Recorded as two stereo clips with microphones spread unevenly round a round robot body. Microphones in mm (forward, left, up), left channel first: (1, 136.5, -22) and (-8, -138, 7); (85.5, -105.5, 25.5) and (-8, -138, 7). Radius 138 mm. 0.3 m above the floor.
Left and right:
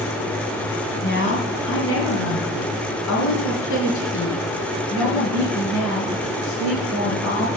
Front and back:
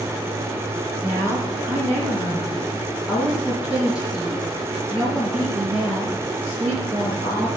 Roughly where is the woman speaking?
Behind left.